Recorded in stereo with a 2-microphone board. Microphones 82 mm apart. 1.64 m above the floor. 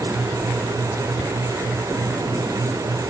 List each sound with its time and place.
Only background noise.